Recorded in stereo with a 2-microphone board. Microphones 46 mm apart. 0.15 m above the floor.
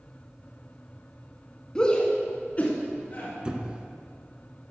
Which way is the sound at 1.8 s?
15° left (ahead or behind).